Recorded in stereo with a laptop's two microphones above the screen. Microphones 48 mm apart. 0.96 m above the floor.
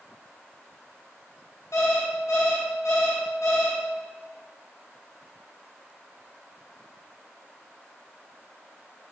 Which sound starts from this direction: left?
An alarm clock, at 1.7 s.